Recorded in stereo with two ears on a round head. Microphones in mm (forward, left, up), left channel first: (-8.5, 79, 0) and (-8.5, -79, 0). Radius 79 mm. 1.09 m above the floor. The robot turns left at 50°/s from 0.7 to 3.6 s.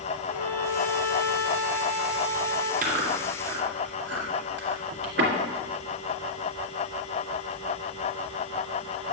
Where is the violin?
120° right, 3 m; by 2.7 s 140° left, 3 m.